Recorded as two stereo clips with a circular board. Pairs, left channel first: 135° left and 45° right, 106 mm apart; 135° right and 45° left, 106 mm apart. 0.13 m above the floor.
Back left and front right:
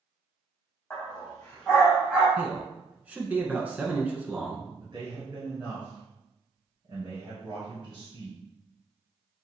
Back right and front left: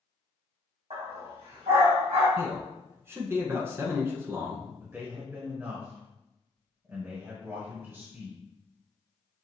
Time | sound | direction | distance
0.9 | a dog barking | 55° left | 2 m
2.4 | a man speaking | 15° left | 1.1 m
4.8 | a man speaking | 20° right | 1.9 m